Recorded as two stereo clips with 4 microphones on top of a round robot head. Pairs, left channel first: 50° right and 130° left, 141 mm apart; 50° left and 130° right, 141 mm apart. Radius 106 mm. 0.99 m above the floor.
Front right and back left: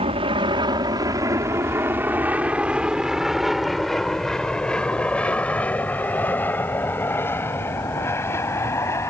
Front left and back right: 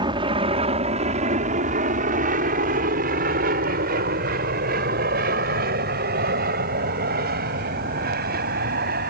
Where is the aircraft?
175° left; by 9.1 s 120° right.